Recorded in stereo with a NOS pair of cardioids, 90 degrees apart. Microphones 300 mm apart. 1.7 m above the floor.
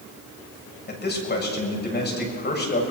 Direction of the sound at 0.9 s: 35° left.